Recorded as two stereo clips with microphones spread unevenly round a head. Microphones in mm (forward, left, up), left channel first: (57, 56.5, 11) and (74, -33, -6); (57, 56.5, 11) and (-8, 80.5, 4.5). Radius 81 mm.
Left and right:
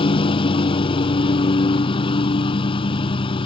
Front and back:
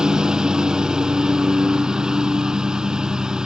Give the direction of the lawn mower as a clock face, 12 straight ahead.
9 o'clock.